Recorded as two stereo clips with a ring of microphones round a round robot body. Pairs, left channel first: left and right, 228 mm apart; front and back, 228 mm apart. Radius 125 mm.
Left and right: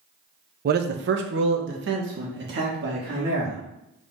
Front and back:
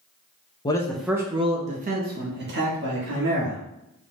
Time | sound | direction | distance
0.7 | a man speaking | 65° right | 0.6 m